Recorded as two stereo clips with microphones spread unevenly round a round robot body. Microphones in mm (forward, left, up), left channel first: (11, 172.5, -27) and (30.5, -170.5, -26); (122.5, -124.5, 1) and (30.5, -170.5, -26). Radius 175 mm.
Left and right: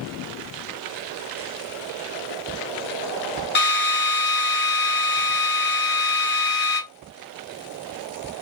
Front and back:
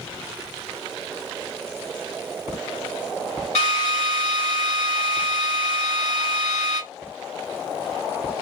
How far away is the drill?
About 0.9 m.